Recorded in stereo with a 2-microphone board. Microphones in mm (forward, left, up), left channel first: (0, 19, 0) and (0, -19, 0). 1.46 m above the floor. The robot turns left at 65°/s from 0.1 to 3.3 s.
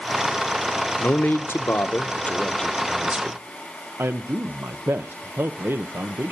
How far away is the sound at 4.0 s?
About 0.8 m.